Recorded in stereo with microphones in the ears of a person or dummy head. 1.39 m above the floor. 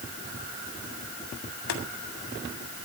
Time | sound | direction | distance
1.7 | boiling | 75° left (ahead or behind) | 2 m